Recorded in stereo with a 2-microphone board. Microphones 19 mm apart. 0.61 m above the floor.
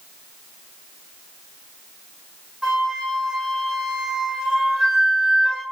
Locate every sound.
2.6 s a flute: 30° right (ahead or behind), 1.3 m